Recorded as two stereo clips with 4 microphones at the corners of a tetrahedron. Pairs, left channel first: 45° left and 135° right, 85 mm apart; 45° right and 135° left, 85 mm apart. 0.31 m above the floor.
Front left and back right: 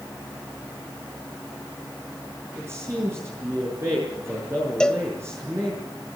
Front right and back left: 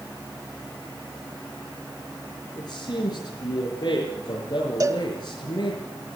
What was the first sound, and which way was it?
A man speaking, 80° right.